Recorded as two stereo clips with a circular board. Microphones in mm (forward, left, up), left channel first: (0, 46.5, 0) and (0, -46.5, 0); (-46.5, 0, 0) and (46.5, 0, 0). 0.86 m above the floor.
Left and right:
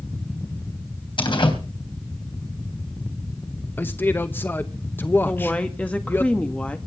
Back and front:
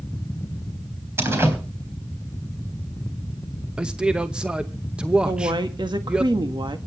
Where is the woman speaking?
20° left, 1.6 m.